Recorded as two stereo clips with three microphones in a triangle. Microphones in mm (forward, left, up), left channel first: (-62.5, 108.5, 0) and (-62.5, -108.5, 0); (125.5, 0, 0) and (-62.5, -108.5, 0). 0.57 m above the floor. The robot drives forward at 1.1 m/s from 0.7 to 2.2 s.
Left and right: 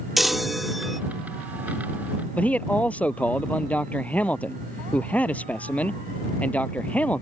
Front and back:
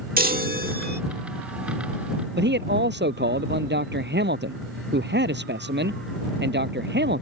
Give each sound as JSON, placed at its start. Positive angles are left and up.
{"t": 0.2, "sound": "a chime", "azimuth_deg": 180}
{"t": 2.4, "sound": "a man speaking", "azimuth_deg": 175}